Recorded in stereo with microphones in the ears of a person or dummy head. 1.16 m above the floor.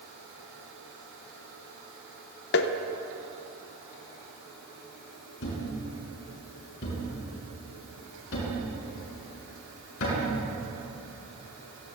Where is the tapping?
60° left (ahead or behind), 0.9 m.